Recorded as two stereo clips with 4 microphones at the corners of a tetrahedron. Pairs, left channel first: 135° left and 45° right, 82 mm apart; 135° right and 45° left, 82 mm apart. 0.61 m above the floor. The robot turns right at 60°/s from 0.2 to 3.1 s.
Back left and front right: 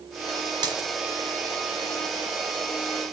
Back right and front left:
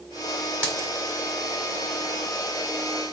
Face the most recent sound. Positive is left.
turn(degrees=135)